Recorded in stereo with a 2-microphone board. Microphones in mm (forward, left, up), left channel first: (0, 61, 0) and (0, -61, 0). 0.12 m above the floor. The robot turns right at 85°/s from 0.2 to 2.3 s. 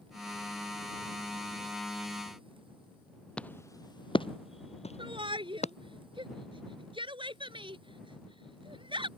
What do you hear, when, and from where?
3.4 s footsteps: 10° left (ahead or behind); by 5.7 s 65° left (ahead or behind)
5.0 s a shout: 45° right (ahead or behind)